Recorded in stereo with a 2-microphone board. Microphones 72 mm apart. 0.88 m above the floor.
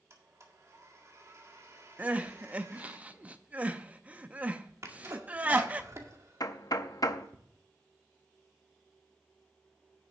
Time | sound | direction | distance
0.1 | a blender | 45° right (ahead or behind) | 1.7 m
2.0 | crying | 20° right (ahead or behind) | 0.6 m
4.8 | a sneeze | 40° right (ahead or behind) | 1.9 m
6.4 | knocking | 55° left (ahead or behind) | 0.6 m